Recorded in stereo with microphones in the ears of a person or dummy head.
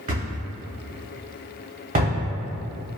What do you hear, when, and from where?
0.1 s a thud: 40° right (ahead or behind), 1.3 m